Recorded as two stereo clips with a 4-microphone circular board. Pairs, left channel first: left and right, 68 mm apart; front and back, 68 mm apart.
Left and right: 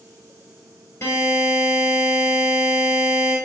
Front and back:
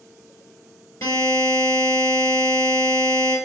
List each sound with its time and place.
1.0 s a buzzer: 30° left, 3 m